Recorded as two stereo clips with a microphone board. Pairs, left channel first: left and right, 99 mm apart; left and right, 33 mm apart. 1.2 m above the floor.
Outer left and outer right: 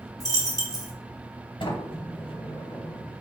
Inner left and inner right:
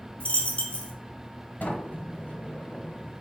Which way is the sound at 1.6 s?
55° left (ahead or behind).